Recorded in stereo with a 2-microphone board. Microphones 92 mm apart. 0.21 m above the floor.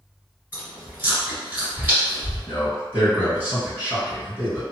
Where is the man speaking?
20° right (ahead or behind), 1.9 m.